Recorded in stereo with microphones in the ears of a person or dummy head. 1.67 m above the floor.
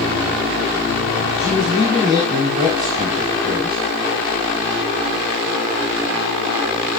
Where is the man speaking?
20° right (ahead or behind), 4.5 m.